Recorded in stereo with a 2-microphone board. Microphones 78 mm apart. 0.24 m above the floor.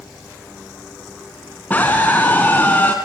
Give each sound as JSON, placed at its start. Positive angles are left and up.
{"t": 1.7, "sound": "a scream", "side_deg": 20, "distance_m": 2.5}